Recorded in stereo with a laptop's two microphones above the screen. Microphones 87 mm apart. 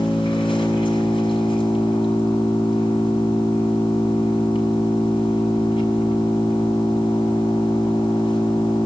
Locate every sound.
0.0 s an engine running: 75° left (ahead or behind), 7 m